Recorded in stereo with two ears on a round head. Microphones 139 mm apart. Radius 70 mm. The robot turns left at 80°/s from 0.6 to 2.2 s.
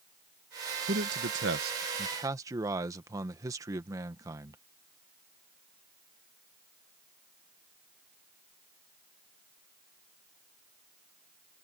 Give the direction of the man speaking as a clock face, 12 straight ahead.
2 o'clock.